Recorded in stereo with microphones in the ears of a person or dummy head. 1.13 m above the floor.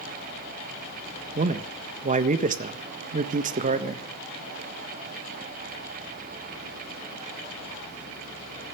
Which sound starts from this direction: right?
A man speaking, at 1.4 s.